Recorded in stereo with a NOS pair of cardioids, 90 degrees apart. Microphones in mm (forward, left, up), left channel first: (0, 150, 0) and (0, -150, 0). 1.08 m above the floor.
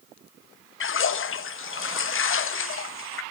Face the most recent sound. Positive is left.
turn(degrees=45)